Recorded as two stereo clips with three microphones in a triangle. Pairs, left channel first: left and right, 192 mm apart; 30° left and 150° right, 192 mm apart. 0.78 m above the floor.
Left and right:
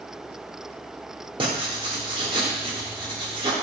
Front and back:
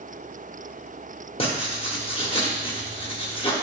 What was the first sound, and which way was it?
Writing, 30° right.